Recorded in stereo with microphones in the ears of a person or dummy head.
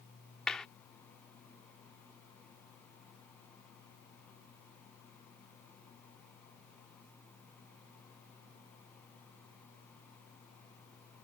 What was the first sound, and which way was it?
A clap, 5° left (ahead or behind).